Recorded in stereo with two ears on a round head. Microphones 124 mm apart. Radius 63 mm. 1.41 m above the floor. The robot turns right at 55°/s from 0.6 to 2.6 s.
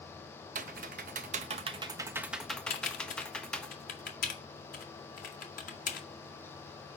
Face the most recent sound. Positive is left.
turn(degrees=65)  # may be behind; listen again after turning